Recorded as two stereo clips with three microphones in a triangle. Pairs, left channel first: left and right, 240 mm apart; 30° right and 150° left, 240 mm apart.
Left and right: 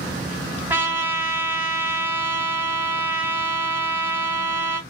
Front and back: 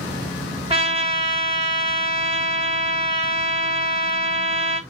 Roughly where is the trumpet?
Behind.